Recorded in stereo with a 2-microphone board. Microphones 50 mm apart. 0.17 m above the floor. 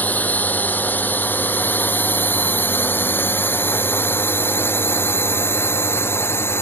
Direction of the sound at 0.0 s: 35° left (ahead or behind).